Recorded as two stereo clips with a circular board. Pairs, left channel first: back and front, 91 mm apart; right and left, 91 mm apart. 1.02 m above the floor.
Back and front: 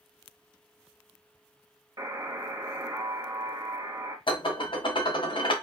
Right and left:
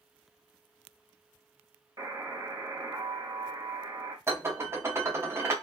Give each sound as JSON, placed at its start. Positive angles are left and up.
{"t": 2.0, "sound": "a buzzer", "azimuth_deg": 45, "distance_m": 0.8}
{"t": 4.3, "sound": "dishes clattering", "azimuth_deg": 150, "distance_m": 0.6}